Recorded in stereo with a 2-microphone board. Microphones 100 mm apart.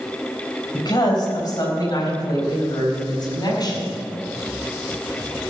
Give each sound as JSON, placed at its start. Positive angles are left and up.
{"t": 0.7, "sound": "a woman speaking", "side_deg": 45, "distance_m": 4.0}